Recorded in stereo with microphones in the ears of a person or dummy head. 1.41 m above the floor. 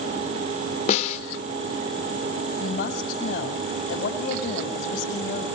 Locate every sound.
0.9 s a snare drum: 45° left (ahead or behind), 3.5 m
2.6 s a woman speaking: 55° left (ahead or behind), 7 m